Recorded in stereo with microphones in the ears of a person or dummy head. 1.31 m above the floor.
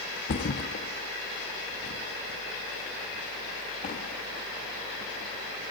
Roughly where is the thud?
Left.